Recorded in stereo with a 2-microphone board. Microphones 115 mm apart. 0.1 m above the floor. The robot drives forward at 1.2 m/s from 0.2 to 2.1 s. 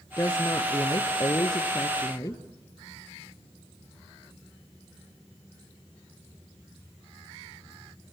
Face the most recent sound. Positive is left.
turn(degrees=30)  # may be behind; listen again after turning